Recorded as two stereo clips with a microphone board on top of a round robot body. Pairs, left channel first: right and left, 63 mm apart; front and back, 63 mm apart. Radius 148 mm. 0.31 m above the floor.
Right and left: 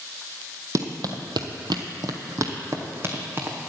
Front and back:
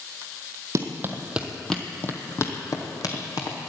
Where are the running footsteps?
130° left, 0.9 m; by 3.6 s 30° left, 1.8 m.